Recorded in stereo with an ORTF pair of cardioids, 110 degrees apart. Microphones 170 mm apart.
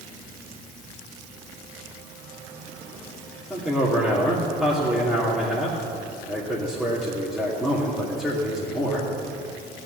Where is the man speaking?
Straight ahead, 2.5 m.